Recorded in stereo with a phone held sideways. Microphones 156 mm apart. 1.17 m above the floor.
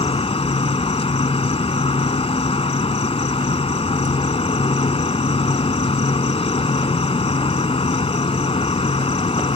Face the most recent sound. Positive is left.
turn(degrees=40)  # may be behind; listen again after turning